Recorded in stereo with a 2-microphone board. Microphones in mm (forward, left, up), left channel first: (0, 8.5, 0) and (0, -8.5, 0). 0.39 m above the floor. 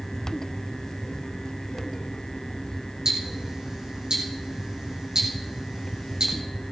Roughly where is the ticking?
Right.